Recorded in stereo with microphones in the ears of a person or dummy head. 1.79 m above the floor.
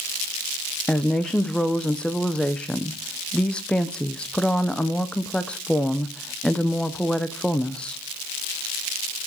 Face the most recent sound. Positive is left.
turn(degrees=5)  # may be behind; listen again after turning